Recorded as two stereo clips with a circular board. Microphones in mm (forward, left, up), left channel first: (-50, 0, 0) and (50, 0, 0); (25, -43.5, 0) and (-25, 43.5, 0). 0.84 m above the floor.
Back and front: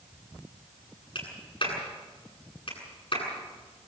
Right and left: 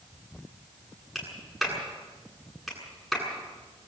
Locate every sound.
1.1 s a clap: 150° right, 9 m